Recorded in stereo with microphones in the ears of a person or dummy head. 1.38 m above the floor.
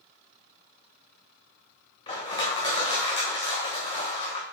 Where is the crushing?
35° left (ahead or behind), 1.5 m.